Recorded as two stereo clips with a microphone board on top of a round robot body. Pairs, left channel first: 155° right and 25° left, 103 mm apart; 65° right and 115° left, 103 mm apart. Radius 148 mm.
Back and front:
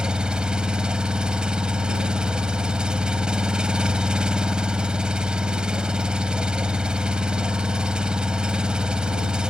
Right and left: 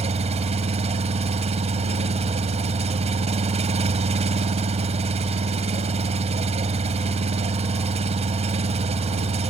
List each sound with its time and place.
0.0 s an engine running: 105° left